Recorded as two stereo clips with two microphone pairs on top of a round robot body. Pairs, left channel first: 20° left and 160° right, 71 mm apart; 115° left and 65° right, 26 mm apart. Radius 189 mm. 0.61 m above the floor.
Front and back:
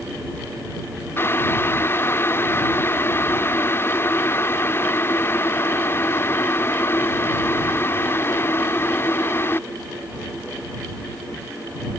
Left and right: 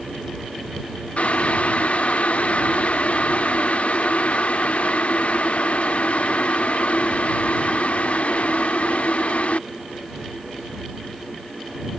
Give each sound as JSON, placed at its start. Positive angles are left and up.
{"t": 1.2, "sound": "boiling", "azimuth_deg": 80}